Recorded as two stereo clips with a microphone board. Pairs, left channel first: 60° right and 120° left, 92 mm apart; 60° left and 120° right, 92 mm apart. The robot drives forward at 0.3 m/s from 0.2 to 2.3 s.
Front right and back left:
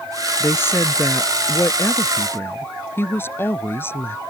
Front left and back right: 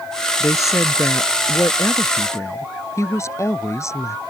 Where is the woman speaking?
5° left.